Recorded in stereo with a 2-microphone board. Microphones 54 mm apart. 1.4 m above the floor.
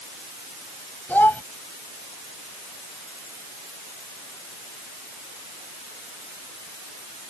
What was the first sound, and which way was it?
A child speaking, 35° left (ahead or behind).